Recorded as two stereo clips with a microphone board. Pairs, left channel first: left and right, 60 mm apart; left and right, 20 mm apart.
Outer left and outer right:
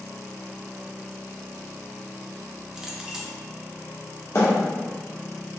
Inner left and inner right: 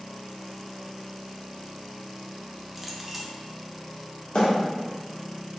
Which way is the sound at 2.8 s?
10° right (ahead or behind).